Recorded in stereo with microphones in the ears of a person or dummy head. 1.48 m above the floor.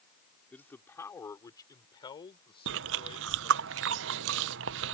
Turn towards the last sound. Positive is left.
turn(degrees=-75)  # may be behind; listen again after turning